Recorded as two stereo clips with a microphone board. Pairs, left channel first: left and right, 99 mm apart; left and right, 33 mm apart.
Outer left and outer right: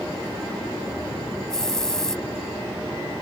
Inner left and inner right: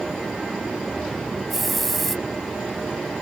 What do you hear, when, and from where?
1.5 s a hiss: 5° left (ahead or behind)